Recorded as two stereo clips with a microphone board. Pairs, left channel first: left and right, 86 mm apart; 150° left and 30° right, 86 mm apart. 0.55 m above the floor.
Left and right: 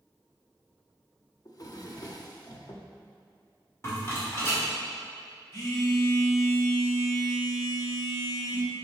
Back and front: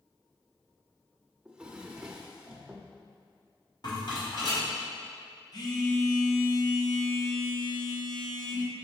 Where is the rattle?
140° left, 2 m.